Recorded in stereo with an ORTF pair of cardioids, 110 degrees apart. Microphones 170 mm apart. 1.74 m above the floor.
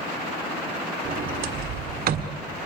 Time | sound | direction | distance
1.1 | a sliding door | 55° right | 1.6 m